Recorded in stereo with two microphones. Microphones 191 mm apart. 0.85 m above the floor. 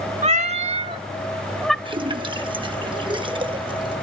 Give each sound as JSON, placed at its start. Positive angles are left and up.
{"t": 0.2, "sound": "a cat meowing", "side_deg": -35, "distance_m": 0.8}
{"t": 1.9, "sound": "a splash", "side_deg": -25, "distance_m": 1.0}